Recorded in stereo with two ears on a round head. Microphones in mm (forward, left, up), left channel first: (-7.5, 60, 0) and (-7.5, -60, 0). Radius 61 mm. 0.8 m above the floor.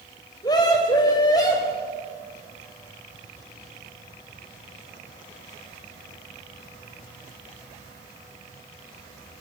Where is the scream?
30° left (ahead or behind), 4.5 m.